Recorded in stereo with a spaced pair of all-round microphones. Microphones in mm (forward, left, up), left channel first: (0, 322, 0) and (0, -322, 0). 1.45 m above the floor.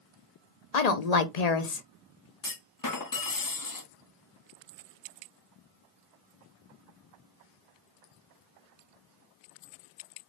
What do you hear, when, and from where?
0.7 s a woman speaking: 75° left (ahead or behind), 0.8 m
2.4 s a clunk: 35° left (ahead or behind), 0.6 m